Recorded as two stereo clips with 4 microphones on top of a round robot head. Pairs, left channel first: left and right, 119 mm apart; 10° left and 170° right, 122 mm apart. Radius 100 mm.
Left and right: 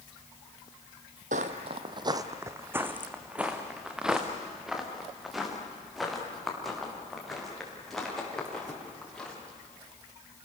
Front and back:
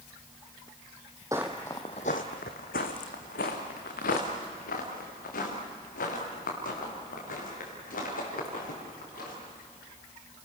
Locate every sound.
1.3 s footsteps: 100° right, 1.0 m; by 9.3 s 5° left, 9 m